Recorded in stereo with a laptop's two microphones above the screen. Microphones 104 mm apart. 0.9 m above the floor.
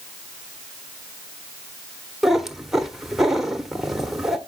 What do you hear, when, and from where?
2.2 s a cat meowing: 5° right (ahead or behind), 1.1 m